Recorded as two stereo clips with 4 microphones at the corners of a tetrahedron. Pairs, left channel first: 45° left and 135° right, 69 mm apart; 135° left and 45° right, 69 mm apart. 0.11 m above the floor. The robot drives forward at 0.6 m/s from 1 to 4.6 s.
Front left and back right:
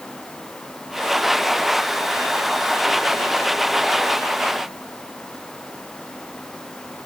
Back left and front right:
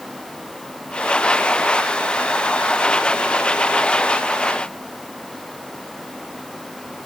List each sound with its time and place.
Only background noise.